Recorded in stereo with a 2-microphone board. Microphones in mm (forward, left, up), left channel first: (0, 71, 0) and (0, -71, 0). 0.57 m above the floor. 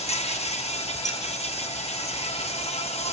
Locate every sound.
0.0 s an insect: 45° left (ahead or behind), 2.5 m
1.1 s keys jangling: 25° left (ahead or behind), 3 m